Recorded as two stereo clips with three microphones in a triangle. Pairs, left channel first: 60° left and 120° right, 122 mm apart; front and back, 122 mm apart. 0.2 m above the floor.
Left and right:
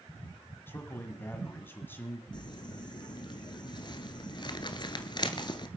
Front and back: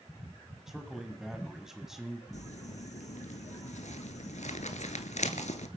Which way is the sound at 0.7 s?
100° left.